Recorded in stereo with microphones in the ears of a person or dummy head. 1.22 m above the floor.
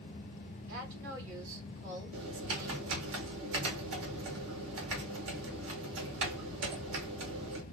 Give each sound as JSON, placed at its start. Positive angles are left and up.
{"t": 0.7, "sound": "a woman speaking", "side_deg": -70, "distance_m": 3.5}
{"t": 2.1, "sound": "typing on a keyboard", "side_deg": -80, "distance_m": 1.9}